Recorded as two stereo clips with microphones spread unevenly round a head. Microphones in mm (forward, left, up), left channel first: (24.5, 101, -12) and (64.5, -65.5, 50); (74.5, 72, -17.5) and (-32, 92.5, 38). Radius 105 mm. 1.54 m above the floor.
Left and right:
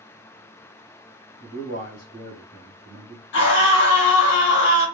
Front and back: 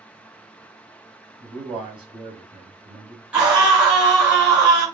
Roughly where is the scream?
Left.